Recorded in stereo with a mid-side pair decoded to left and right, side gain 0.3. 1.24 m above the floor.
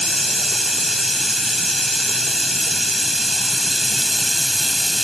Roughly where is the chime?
I don't hear a chime.